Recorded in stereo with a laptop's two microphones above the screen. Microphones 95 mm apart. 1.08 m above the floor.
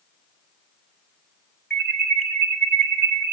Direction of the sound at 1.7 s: 5° left (ahead or behind).